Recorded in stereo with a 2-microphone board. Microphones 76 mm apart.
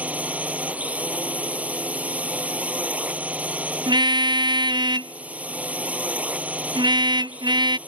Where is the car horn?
75° right (ahead or behind).